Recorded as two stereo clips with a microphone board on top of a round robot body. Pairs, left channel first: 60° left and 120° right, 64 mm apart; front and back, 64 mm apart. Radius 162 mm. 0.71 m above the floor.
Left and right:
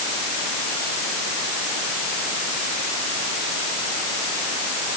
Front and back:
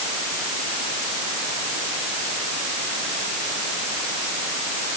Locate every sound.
Only background noise.